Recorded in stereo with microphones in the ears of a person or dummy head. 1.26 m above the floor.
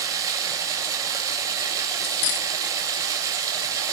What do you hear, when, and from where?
0.0 s running water: 15° right (ahead or behind), 3 m
2.0 s cutlery clinking: 55° left (ahead or behind), 1.0 m